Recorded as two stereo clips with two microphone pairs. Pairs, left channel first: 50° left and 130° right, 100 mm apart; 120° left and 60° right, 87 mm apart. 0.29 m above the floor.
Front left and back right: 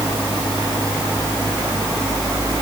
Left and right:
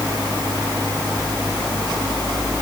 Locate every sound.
Only background noise.